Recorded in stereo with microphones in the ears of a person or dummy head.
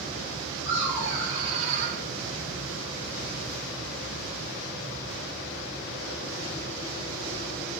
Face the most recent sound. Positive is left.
turn(degrees=-60)  # may be behind; listen again after turning